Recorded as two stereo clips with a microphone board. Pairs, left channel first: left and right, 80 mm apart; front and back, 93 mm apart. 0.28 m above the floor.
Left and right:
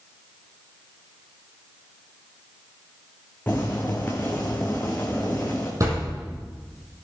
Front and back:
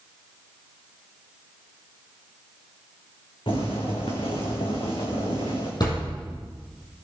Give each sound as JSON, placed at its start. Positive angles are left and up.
{"t": 3.5, "sound": "boiling", "azimuth_deg": 20, "distance_m": 3.5}
{"t": 5.8, "sound": "a thud", "azimuth_deg": -40, "distance_m": 5.5}